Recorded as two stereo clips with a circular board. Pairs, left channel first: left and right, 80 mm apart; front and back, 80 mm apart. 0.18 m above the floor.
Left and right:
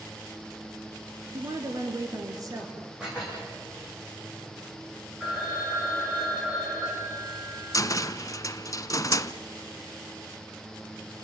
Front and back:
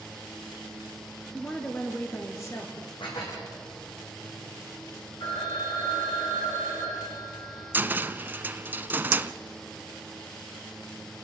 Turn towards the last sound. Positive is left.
turn(degrees=120)